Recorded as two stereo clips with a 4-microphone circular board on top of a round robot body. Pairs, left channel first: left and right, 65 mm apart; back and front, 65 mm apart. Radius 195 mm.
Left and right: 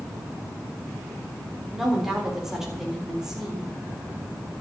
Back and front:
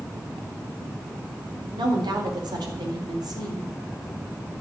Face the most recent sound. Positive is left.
turn(degrees=-10)